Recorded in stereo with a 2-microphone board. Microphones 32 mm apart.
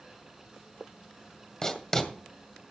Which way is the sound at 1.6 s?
20° left (ahead or behind).